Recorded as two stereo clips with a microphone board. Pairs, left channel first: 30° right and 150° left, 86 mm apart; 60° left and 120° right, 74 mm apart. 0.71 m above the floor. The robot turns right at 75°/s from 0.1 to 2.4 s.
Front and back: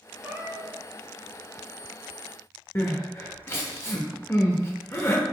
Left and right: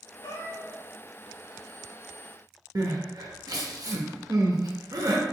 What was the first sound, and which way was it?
A cat meowing, 80° left.